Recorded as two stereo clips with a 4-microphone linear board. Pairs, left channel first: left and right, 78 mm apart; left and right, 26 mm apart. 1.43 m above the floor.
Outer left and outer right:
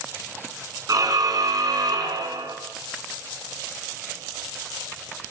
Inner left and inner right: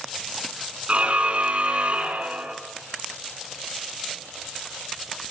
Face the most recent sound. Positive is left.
turn(degrees=-55)  # may be behind; listen again after turning